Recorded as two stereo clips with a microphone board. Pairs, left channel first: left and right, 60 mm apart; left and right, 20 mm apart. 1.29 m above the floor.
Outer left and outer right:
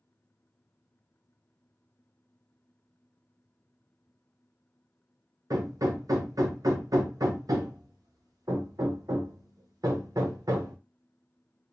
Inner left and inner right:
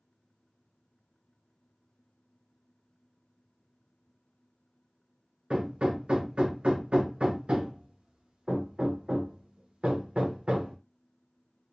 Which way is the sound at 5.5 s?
80° right.